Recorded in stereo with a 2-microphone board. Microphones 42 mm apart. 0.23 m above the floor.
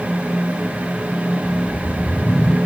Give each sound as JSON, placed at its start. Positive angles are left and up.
{"t": 1.4, "sound": "a whoosh", "side_deg": 20, "distance_m": 2.0}